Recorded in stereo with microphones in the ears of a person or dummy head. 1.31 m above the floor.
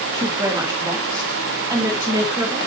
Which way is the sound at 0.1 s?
20° right (ahead or behind).